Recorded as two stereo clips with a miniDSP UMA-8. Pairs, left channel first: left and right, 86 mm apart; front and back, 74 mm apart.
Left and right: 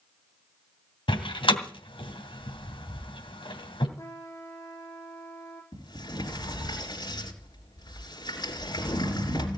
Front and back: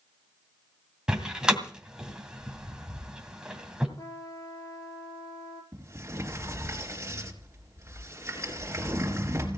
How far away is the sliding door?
About 3.5 m.